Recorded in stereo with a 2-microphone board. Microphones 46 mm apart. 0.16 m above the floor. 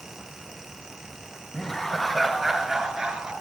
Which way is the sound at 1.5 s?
20° left (ahead or behind).